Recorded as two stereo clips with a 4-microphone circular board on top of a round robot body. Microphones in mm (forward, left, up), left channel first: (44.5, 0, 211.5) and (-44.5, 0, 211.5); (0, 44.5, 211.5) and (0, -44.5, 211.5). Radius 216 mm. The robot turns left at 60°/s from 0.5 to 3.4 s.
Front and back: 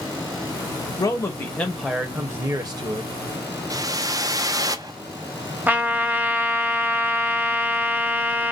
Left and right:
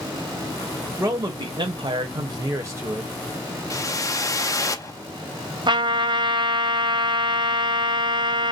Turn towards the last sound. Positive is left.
turn(degrees=-110)